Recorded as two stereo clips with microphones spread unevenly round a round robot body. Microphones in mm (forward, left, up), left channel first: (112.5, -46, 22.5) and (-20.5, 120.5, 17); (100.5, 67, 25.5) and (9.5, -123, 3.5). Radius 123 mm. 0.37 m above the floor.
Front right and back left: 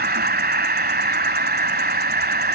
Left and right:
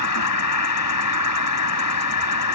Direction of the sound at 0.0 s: 85° left.